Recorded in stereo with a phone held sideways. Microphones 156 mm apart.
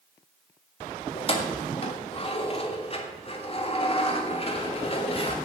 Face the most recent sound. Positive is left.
turn(degrees=40)  # may be behind; listen again after turning